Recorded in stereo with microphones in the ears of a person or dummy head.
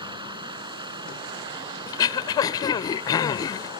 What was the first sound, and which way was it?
Running water, 25° right (ahead or behind).